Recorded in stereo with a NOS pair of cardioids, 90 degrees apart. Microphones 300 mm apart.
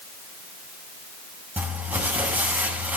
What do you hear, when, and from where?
1.6 s crumpling: 5° right, 6.5 m